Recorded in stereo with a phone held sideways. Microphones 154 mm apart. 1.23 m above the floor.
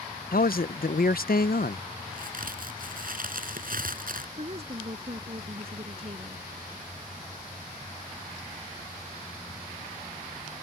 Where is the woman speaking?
40° right (ahead or behind).